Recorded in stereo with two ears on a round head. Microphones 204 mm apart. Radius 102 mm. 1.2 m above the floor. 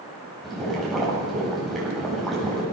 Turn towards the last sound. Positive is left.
turn(degrees=0)  # may be behind; listen again after turning